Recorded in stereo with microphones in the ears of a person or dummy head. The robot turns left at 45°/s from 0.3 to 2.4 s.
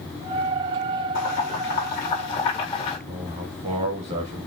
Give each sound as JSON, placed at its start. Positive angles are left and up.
{"t": 1.1, "sound": "boiling", "side_deg": 85, "distance_m": 1.6}
{"t": 3.1, "sound": "a man speaking", "side_deg": -35, "distance_m": 1.6}